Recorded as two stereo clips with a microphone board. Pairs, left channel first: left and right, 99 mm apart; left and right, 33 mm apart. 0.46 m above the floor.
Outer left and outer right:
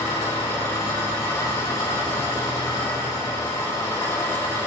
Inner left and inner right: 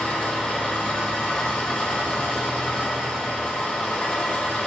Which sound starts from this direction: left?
An engine running, at 0.0 s.